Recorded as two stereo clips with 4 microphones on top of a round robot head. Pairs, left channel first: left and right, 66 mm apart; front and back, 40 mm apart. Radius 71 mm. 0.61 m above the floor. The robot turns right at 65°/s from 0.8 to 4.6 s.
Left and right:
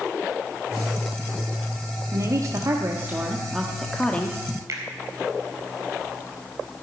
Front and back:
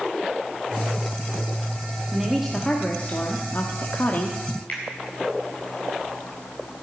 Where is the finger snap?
55° right, 3.5 m.